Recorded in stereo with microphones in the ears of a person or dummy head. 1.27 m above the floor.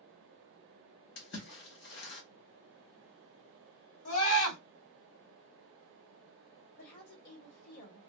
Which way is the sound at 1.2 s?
55° left (ahead or behind).